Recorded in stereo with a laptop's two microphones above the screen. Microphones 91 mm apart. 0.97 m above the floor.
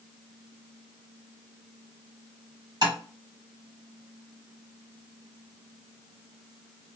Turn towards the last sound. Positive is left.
turn(degrees=-45)  # may be behind; listen again after turning